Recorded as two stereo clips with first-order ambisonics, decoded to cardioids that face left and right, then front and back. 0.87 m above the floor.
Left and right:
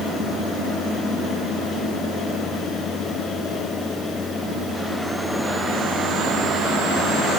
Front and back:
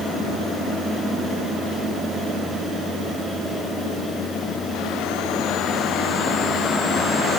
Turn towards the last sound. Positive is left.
No sound to turn to.